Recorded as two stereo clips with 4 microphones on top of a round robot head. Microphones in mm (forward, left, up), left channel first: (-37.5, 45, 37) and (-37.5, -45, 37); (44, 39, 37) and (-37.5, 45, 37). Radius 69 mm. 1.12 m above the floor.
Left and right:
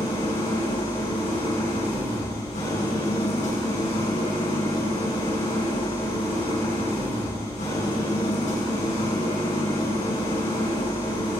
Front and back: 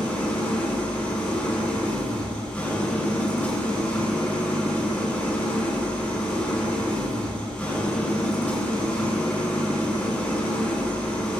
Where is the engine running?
75° left, 5.5 m.